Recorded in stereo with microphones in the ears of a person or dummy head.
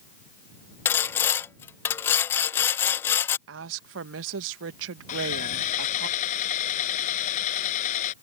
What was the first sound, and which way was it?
Sawing, 15° left (ahead or behind).